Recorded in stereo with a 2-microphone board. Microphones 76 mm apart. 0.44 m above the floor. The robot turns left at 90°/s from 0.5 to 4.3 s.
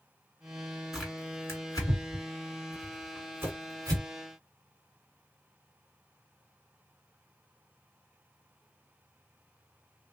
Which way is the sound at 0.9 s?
5° right (ahead or behind).